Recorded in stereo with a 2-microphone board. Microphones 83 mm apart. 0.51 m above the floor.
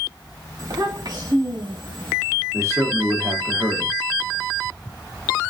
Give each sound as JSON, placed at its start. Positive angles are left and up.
{"t": 0.6, "sound": "a child speaking", "side_deg": -50, "distance_m": 1.9}
{"t": 2.5, "sound": "a man speaking", "side_deg": -35, "distance_m": 1.0}